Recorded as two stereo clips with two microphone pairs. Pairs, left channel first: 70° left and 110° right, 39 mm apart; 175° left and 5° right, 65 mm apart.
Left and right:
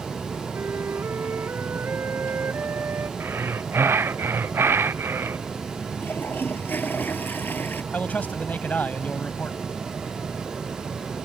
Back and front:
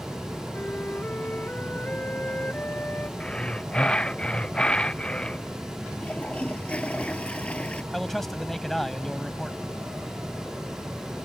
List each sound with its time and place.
0.5 s a flute: 125° right
3.2 s breathing: 110° right
6.0 s a toilet flushing: 105° left
7.9 s a man speaking: 90° left